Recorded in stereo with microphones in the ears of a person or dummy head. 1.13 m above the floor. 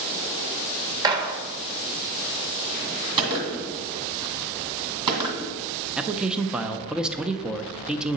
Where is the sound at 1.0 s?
25° right (ahead or behind), 1.0 m.